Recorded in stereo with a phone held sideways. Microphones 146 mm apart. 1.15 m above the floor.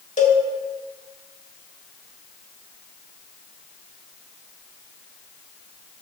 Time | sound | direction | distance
0.2 | a cowbell | 55° left (ahead or behind) | 1.5 m